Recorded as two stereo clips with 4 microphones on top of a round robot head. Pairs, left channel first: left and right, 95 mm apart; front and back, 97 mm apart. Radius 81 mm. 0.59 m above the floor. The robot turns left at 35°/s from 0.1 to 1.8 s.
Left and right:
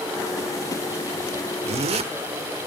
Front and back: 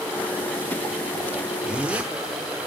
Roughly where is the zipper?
Right.